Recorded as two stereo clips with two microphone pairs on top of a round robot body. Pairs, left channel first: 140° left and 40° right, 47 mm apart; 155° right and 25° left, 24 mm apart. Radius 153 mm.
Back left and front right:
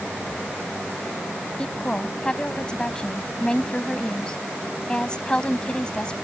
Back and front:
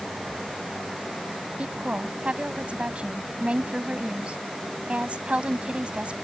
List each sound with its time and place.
1.6 s a woman speaking: 70° left